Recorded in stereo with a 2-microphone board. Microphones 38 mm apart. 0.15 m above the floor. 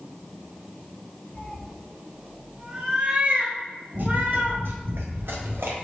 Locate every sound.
1.4 s a cat meowing: 25° left (ahead or behind), 1.0 m; by 4.6 s 50° right (ahead or behind), 2 m
3.9 s running footsteps: 45° right (ahead or behind), 2.5 m; by 5.8 s 70° right (ahead or behind), 2.5 m